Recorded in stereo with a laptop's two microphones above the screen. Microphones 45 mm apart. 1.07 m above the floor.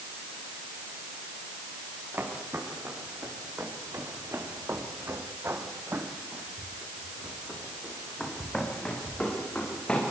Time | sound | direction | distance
2.1 | footsteps | 60° right (ahead or behind) | 7 m